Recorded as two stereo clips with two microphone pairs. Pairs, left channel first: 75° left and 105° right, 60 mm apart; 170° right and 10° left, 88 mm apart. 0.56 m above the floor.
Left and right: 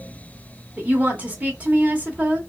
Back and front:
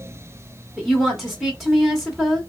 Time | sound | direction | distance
0.8 | a woman speaking | 80° right | 0.9 m